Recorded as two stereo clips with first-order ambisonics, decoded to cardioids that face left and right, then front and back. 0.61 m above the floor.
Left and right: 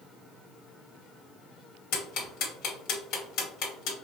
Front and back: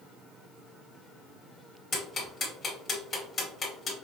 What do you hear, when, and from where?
1.9 s ticking: 65° left, 2 m